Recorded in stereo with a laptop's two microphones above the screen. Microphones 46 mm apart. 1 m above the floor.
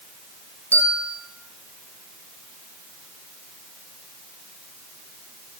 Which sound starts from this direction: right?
A bell, at 0.7 s.